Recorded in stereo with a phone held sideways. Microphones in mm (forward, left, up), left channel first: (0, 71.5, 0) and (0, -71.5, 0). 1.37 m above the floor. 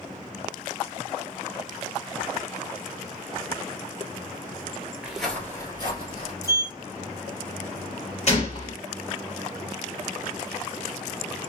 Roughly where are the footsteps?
Centre.